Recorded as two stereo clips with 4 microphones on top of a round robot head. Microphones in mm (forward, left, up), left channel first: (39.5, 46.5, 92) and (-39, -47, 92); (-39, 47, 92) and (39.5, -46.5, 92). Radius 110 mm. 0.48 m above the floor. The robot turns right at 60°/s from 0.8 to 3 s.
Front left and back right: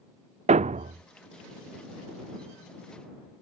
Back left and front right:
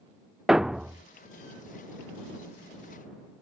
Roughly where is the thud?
Behind right.